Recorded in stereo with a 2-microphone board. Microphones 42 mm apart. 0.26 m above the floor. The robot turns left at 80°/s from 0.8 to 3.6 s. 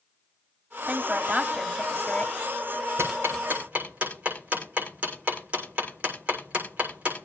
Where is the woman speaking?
100° right, 1.4 m; by 2.3 s 140° left, 1.4 m.